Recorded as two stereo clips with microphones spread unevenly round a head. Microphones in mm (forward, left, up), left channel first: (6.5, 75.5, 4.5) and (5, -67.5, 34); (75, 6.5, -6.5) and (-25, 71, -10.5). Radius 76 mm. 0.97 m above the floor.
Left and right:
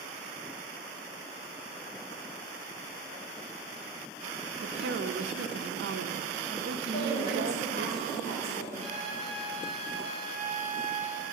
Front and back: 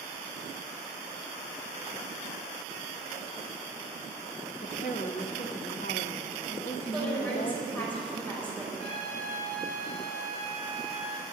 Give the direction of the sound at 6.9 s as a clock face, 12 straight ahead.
11 o'clock.